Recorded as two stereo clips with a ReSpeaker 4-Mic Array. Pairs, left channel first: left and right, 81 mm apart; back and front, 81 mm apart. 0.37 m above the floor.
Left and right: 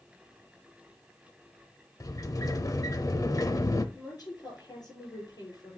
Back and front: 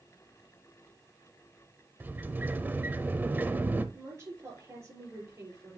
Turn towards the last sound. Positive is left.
turn(degrees=55)